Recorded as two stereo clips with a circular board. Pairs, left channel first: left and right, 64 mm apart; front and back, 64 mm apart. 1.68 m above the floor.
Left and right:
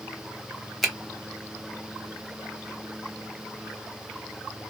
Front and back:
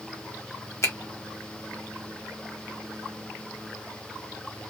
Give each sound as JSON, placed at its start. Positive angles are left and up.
{"t": 0.8, "sound": "a finger snap", "azimuth_deg": 0, "distance_m": 1.0}